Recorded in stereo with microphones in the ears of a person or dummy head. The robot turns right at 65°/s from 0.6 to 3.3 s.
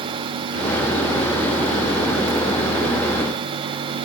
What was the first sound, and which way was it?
Only background noise.